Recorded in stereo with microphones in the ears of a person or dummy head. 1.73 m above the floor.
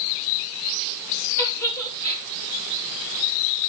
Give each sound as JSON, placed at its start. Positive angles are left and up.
{"t": 1.4, "sound": "a giggle", "side_deg": 10, "distance_m": 3.5}